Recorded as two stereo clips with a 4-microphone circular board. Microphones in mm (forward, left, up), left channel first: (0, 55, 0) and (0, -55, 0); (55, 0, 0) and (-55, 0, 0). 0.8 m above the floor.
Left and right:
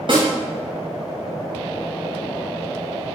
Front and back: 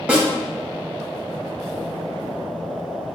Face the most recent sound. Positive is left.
turn(degrees=-105)